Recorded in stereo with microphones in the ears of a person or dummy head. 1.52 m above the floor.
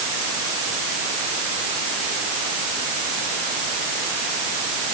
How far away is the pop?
No pop in this recording.